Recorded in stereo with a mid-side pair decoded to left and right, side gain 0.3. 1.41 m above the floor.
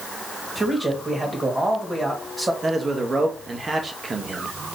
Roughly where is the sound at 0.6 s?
Ahead right.